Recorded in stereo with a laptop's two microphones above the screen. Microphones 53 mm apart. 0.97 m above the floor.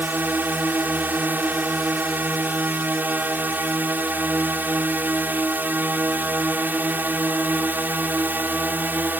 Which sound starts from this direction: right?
A drone, at 0.0 s.